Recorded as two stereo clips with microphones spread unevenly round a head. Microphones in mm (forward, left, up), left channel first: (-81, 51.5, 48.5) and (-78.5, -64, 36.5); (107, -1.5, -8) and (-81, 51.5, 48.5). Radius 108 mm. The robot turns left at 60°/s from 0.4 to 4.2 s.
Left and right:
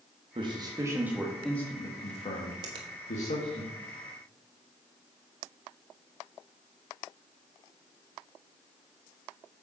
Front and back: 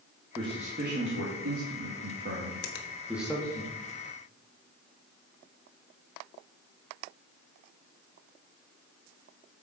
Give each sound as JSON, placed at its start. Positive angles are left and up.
{"t": 0.3, "sound": "a man speaking", "azimuth_deg": -120, "distance_m": 1.8}
{"t": 2.6, "sound": "a finger snap", "azimuth_deg": -35, "distance_m": 1.2}